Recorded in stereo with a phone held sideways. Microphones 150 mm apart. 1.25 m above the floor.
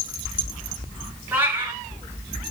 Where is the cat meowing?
15° right (ahead or behind), 3.5 m.